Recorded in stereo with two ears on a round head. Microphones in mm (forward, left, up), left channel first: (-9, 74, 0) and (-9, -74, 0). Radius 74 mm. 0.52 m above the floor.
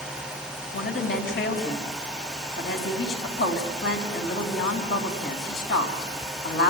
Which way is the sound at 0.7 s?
75° left (ahead or behind).